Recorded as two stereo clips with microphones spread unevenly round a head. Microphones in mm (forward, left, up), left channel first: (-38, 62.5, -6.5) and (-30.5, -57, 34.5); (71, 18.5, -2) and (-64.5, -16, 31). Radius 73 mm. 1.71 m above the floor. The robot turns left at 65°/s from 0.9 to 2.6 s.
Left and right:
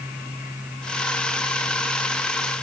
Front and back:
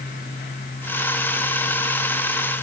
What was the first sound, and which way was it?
Only background noise.